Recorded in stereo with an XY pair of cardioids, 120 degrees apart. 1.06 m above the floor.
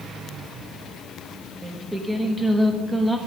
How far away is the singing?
About 1.3 m.